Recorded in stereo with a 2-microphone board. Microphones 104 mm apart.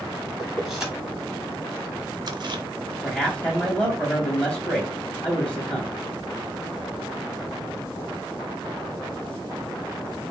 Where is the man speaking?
10° left (ahead or behind), 2 m.